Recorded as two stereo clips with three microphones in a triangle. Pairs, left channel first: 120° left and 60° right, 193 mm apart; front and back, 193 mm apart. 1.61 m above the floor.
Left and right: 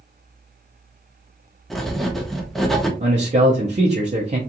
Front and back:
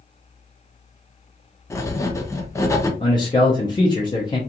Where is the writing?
35° left, 0.5 m.